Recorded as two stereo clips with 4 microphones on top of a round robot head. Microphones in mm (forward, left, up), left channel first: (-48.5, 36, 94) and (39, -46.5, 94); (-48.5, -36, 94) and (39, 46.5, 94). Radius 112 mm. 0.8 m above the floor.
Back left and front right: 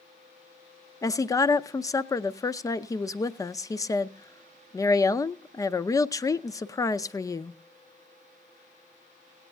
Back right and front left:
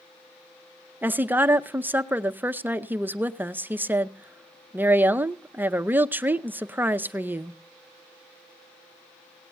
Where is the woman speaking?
105° left, 0.7 m.